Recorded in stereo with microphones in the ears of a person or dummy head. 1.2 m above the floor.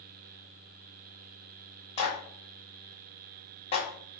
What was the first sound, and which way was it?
A clap, 30° left (ahead or behind).